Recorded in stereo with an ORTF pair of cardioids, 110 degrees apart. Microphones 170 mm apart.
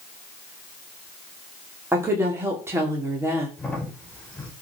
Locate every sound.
1.9 s a woman speaking: 15° right, 3 m
3.6 s a crack: 5° left, 4.5 m